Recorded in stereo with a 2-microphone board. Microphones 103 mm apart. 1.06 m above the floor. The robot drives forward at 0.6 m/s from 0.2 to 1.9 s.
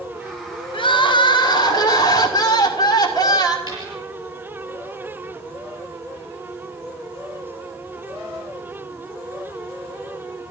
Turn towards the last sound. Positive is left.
turn(degrees=-30)  # may be behind; listen again after turning